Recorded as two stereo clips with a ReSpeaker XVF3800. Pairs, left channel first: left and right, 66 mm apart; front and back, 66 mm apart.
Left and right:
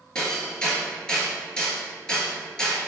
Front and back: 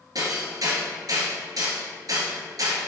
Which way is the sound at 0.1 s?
165° left.